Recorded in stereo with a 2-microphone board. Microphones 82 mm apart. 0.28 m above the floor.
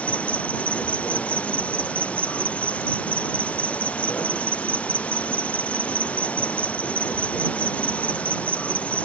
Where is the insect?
15° left (ahead or behind).